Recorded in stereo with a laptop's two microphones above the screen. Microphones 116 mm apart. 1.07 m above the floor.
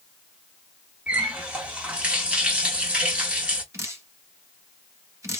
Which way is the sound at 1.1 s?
10° right (ahead or behind).